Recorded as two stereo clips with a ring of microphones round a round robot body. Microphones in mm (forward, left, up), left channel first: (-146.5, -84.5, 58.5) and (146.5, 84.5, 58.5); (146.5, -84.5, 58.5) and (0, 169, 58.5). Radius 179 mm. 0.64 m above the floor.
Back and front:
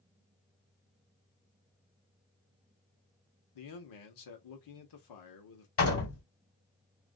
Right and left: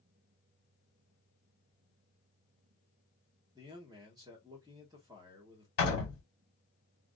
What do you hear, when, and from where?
3.5 s a man speaking: 165° right, 1.0 m
5.8 s a door slam: 100° right, 1.5 m